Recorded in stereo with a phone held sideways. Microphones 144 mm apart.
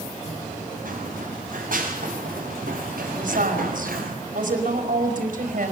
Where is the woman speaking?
70° right (ahead or behind), 5 m.